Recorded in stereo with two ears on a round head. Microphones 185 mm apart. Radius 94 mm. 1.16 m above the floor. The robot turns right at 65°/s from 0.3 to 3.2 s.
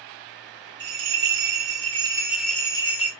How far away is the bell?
About 1.2 m.